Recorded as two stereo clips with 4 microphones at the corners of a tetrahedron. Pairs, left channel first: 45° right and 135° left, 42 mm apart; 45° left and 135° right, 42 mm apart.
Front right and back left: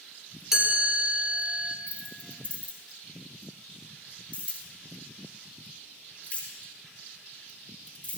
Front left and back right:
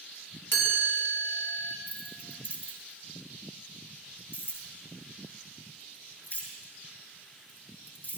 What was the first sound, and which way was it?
A chime, 60° left.